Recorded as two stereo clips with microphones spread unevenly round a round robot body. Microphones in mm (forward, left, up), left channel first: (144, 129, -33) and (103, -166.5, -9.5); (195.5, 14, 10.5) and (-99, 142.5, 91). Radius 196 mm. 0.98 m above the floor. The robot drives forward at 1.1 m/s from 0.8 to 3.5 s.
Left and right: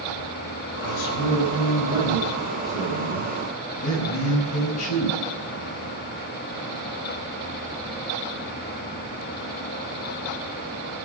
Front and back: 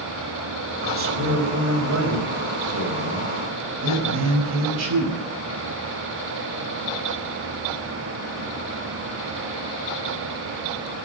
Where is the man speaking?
105° left, 4.5 m; by 5.2 s 135° left, 6 m.